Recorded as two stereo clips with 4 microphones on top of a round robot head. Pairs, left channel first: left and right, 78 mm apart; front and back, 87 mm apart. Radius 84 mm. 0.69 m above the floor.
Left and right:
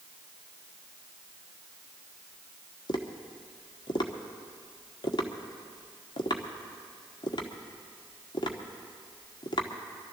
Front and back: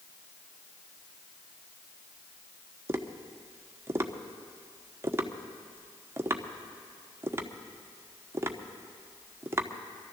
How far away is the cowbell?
No cowbell in this recording.